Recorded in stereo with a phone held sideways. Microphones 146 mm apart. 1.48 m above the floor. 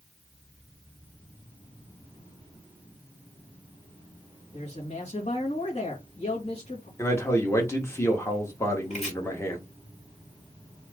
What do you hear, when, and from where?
4.5 s a man speaking: 45° left (ahead or behind), 2 m
7.0 s a man speaking: 20° left (ahead or behind), 1.6 m
8.9 s chopping: 50° left (ahead or behind), 2.5 m